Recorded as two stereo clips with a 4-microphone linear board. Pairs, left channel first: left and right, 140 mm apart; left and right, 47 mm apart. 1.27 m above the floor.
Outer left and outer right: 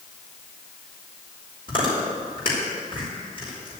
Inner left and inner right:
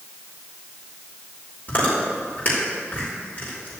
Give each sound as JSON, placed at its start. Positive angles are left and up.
{"t": 1.7, "sound": "chewing", "side_deg": 40, "distance_m": 5.0}